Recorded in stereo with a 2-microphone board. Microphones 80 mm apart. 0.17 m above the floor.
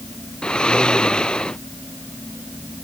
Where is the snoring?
10° left (ahead or behind).